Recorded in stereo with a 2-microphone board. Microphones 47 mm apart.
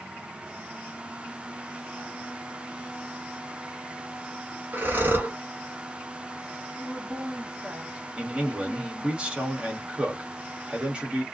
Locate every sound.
4.7 s breathing: 40° right (ahead or behind), 1.3 m
6.8 s a woman speaking: 20° right (ahead or behind), 1.4 m
8.2 s a man speaking: 20° right (ahead or behind), 1.4 m